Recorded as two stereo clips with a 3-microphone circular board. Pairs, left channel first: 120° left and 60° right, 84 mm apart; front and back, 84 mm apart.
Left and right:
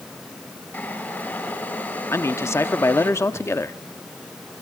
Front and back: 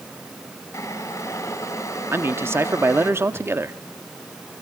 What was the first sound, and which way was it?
Boiling, 55° left.